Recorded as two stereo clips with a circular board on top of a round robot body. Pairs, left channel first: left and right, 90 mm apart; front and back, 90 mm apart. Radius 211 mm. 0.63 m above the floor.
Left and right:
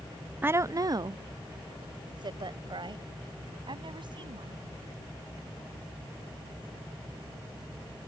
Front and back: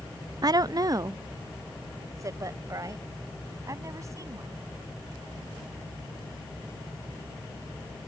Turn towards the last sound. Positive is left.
turn(degrees=-125)